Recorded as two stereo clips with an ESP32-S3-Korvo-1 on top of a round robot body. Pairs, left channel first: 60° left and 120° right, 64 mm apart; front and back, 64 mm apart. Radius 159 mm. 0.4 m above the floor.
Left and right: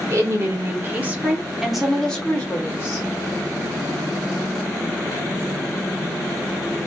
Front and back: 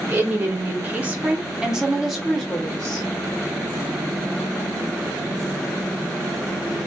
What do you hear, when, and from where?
0.1 s a woman speaking: 130° right, 1.5 m; by 3.1 s 70° left, 1.3 m